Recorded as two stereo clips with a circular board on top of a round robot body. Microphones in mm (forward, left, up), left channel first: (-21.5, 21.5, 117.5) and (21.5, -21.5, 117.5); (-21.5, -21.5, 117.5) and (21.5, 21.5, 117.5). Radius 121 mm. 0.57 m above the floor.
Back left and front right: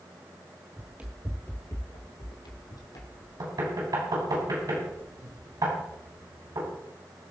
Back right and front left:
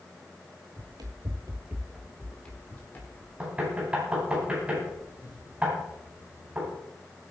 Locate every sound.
0.8 s running footsteps: 20° left, 1.1 m; by 3.3 s 165° left, 2 m
3.4 s knocking: 25° right, 3.5 m